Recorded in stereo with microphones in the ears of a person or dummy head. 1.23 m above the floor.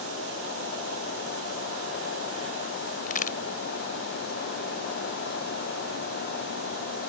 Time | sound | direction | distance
3.1 | a crack | 55° left (ahead or behind) | ?